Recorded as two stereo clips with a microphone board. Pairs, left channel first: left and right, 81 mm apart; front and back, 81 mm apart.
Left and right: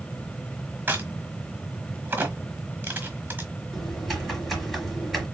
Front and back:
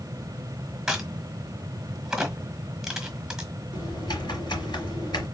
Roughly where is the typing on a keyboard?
Ahead.